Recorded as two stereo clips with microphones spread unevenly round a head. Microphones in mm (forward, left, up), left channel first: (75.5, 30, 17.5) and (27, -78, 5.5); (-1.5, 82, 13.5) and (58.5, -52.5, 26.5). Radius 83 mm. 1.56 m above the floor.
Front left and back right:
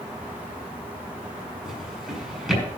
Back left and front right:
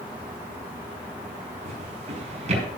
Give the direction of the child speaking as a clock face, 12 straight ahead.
No child speaking in this recording.